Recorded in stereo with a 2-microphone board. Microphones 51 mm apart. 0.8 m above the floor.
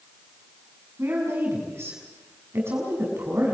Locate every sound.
1.0 s a woman speaking: 60° right (ahead or behind), 6 m